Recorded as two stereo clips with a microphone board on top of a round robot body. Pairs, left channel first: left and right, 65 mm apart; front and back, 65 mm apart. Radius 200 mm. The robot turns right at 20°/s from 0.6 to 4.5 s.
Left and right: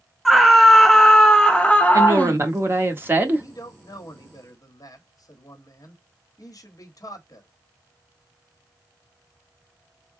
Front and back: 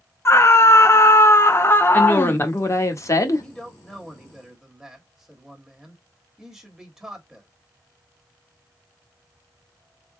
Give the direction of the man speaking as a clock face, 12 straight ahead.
9 o'clock.